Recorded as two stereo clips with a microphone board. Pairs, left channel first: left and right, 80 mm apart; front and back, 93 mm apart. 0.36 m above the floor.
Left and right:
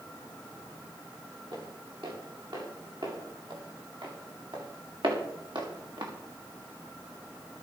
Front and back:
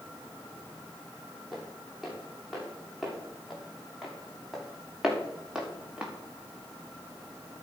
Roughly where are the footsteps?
Right.